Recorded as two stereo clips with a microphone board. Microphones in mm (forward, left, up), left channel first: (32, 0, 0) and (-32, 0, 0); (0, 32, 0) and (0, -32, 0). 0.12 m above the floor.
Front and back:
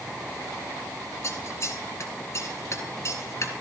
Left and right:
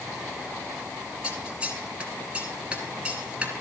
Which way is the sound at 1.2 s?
25° right.